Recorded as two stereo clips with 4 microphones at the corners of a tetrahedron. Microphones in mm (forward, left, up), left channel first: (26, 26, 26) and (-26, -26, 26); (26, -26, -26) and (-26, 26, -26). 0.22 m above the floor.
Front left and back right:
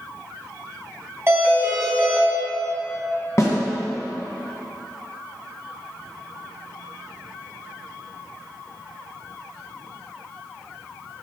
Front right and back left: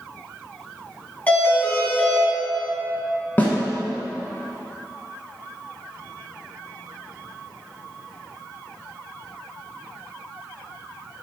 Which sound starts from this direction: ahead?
A snare drum, at 3.4 s.